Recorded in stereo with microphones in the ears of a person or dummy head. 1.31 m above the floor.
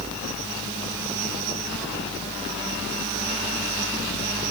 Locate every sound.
Only background noise.